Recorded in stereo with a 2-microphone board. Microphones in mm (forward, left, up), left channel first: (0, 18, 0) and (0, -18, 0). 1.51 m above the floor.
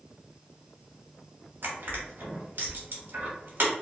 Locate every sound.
1.6 s crushing: 70° right (ahead or behind), 1.0 m